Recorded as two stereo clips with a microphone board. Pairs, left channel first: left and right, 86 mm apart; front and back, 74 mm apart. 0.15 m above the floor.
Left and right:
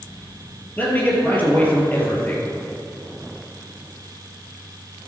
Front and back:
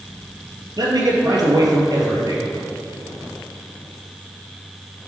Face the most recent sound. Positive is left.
turn(degrees=160)